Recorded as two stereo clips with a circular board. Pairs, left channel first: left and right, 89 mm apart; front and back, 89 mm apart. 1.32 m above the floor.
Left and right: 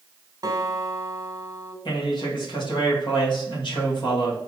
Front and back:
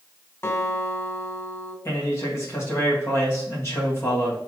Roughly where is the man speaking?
Ahead left.